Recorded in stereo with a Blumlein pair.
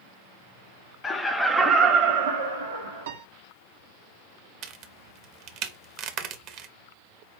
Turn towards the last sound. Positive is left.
turn(degrees=-35)